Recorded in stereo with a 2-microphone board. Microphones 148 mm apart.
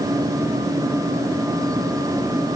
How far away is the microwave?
I don't hear a microwave.